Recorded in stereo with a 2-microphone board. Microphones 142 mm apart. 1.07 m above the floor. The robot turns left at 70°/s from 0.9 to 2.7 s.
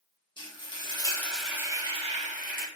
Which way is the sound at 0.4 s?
35° left.